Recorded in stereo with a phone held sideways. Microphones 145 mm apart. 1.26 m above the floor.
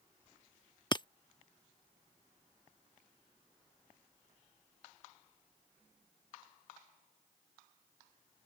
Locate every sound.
0.9 s breaking glass: 30° left (ahead or behind)